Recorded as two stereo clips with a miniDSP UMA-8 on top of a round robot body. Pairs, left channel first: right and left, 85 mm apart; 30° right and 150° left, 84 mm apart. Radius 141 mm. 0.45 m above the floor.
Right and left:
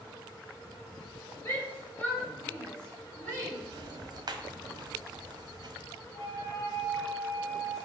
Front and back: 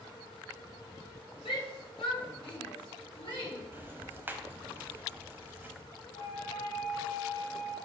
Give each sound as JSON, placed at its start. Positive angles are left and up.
{"t": 1.4, "sound": "a shout", "azimuth_deg": -25, "distance_m": 3.5}
{"t": 3.7, "sound": "ticking", "azimuth_deg": 85, "distance_m": 1.2}
{"t": 6.1, "sound": "a flute", "azimuth_deg": -30, "distance_m": 3.0}